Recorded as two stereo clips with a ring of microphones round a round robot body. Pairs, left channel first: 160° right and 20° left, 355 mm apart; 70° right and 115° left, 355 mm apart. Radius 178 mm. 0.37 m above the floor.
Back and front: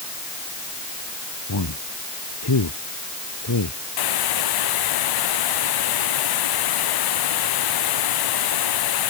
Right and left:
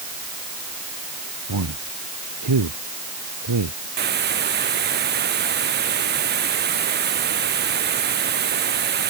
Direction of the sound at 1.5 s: 155° left.